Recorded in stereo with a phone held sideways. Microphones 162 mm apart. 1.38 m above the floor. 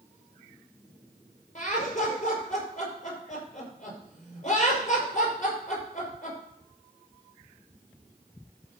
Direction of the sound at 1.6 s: 50° left (ahead or behind).